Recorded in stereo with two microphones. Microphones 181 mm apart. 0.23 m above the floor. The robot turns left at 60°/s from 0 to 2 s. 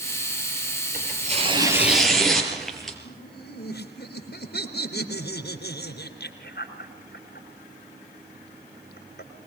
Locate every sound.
0.9 s tearing paper: 120° right, 5 m; by 3.0 s straight behind, 5 m
3.0 s laughter: 70° left (ahead or behind), 3.5 m